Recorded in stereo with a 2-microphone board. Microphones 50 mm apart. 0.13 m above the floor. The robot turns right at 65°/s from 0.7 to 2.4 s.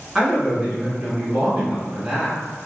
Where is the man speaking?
5° right (ahead or behind), 1.3 m; by 2.4 s 15° right (ahead or behind), 1.3 m.